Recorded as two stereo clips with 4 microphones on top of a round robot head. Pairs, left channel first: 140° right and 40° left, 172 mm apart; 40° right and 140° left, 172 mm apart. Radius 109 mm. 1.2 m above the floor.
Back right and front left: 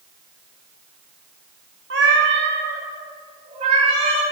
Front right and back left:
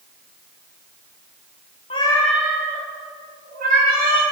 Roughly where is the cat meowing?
Ahead.